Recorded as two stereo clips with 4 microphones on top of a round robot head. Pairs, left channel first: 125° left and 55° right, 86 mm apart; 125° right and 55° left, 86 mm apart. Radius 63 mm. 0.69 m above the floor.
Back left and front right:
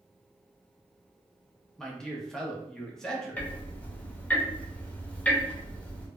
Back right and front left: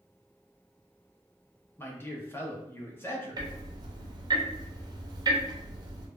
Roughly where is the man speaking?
Behind right.